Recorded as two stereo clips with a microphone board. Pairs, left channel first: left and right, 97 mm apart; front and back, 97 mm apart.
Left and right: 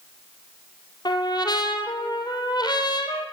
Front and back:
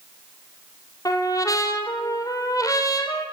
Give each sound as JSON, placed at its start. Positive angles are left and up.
{"t": 1.1, "sound": "a trumpet", "azimuth_deg": 50, "distance_m": 3.0}